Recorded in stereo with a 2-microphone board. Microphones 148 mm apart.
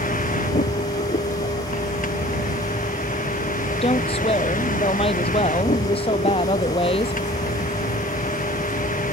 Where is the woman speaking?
40° left (ahead or behind).